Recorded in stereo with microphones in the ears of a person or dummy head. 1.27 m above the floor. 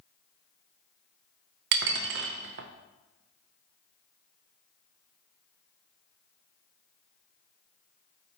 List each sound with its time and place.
1.7 s dishes clattering: 50° right (ahead or behind), 0.5 m